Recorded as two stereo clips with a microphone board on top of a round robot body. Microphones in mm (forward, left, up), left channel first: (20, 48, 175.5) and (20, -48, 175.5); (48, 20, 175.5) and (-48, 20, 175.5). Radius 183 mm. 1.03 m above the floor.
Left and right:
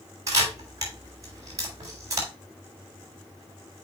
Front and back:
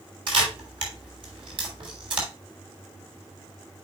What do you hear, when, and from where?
0.3 s a camera shutter: 145° right, 3.5 m